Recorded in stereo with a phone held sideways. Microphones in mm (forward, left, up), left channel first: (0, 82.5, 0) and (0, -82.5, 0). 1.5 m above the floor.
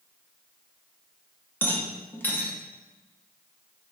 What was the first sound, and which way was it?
A rattle, 10° left (ahead or behind).